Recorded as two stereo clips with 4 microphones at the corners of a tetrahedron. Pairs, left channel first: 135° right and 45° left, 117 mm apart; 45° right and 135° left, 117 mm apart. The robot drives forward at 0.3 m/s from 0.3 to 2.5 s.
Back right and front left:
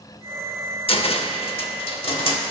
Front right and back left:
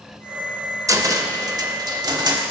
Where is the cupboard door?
165° right, 0.5 m; by 2.4 s 170° right, 1.0 m.